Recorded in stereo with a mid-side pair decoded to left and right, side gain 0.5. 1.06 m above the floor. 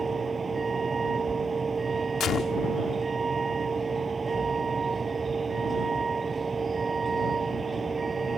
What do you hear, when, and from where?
0.0 s a vehicle: 30° right
2.2 s a gunshot: 55° left